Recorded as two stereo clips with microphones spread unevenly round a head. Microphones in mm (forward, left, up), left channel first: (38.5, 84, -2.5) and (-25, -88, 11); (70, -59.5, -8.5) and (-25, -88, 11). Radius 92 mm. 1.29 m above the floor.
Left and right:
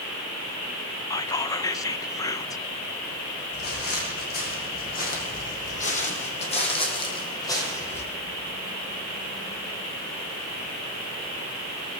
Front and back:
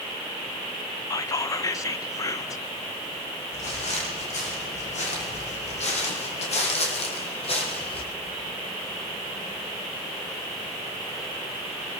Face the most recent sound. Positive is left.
turn(degrees=-10)